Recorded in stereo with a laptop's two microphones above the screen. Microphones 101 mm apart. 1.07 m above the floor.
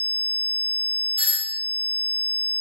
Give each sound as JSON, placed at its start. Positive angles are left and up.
{"t": 1.2, "sound": "a doorbell", "side_deg": -60, "distance_m": 1.2}